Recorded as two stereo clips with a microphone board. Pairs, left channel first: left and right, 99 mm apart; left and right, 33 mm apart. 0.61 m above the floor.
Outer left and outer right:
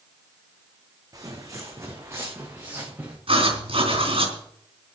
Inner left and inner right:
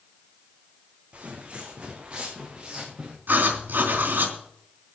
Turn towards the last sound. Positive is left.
turn(degrees=-65)  # may be behind; listen again after turning